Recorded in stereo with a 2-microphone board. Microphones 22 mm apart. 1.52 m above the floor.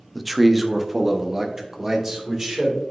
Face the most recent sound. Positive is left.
turn(degrees=-30)  # may be behind; listen again after turning